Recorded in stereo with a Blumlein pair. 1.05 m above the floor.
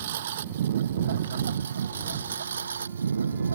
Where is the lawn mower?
60° right; by 3.6 s 75° right.